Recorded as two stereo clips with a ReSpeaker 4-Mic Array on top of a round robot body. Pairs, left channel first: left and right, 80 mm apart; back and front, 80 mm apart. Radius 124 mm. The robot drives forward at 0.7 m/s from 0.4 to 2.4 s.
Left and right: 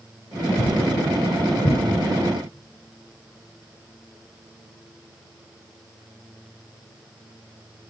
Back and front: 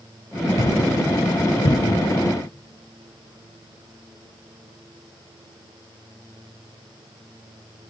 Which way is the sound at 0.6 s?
130° left.